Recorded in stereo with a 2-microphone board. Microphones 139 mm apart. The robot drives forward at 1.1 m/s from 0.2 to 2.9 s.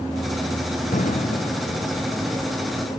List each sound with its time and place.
0.9 s an explosion: 70° left (ahead or behind); by 1.8 s 65° left (ahead or behind)